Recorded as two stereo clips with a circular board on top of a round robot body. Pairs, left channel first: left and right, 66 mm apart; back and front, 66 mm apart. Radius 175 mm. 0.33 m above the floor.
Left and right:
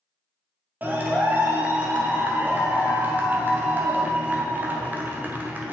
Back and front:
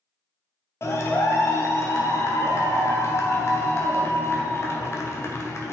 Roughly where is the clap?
Behind right.